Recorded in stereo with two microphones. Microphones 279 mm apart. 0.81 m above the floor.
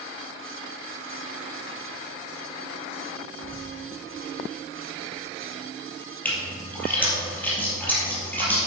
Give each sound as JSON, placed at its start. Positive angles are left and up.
{"t": 3.4, "sound": "a bird", "side_deg": -25, "distance_m": 1.1}
{"t": 6.2, "sound": "a splash", "side_deg": 5, "distance_m": 3.0}